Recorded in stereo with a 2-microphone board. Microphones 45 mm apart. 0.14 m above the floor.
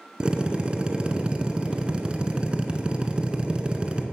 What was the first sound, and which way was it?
A drill, 20° right (ahead or behind).